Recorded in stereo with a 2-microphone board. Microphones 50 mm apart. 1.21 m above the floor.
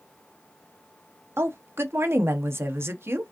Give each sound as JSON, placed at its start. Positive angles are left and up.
{"t": 1.4, "sound": "a woman speaking", "side_deg": -60, "distance_m": 0.7}